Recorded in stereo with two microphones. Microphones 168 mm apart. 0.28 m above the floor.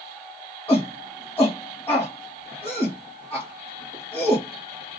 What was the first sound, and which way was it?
A shout, 10° left (ahead or behind).